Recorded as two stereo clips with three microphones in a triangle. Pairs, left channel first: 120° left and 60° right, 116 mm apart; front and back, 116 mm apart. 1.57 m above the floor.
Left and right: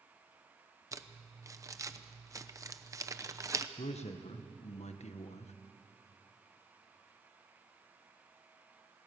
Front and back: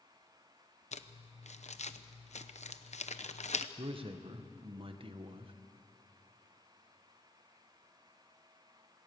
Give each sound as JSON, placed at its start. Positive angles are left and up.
{"t": 0.9, "sound": "crumpling", "azimuth_deg": 0, "distance_m": 0.8}
{"t": 3.8, "sound": "a man speaking", "azimuth_deg": 140, "distance_m": 1.4}